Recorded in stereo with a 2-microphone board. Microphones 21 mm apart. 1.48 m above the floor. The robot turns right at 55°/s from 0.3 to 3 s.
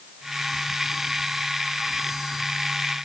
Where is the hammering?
I don't hear hammering.